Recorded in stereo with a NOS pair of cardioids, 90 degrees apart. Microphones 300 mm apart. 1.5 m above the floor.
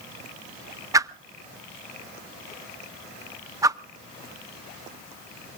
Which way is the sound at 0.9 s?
10° right.